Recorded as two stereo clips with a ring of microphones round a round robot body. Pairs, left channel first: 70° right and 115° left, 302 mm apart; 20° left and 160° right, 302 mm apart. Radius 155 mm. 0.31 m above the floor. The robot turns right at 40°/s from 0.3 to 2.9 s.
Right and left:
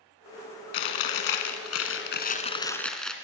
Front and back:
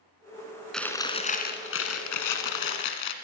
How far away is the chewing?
About 1.7 m.